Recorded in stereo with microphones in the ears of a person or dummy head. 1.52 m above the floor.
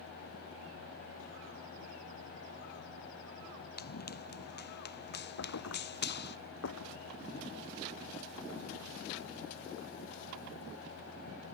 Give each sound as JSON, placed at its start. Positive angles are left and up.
{"t": 3.8, "sound": "running footsteps", "side_deg": 50}
{"t": 5.4, "sound": "a thud", "side_deg": 70}